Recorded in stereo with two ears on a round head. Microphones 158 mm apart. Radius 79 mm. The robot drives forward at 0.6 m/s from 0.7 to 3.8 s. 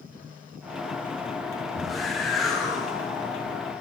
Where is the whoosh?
Centre (ahead or behind), 0.8 m.